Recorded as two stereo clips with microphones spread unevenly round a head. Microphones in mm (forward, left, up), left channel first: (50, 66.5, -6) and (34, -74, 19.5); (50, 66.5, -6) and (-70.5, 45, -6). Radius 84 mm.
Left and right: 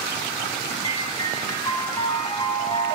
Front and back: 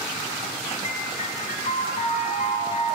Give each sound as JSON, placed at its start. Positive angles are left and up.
{"t": 0.8, "sound": "a piano", "azimuth_deg": 20, "distance_m": 1.6}